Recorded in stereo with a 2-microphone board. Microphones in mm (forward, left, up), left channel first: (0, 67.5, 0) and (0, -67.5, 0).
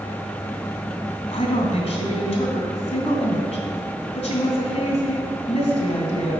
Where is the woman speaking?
45° left (ahead or behind), 2.5 m.